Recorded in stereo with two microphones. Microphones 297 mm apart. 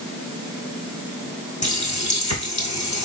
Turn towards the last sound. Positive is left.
turn(degrees=55)  # may be behind; listen again after turning